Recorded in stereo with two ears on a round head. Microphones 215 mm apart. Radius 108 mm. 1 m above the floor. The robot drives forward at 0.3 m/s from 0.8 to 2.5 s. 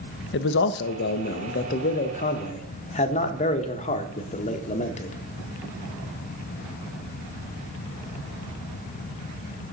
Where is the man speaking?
50° left (ahead or behind), 0.6 m; by 5.2 s 30° left (ahead or behind), 0.9 m.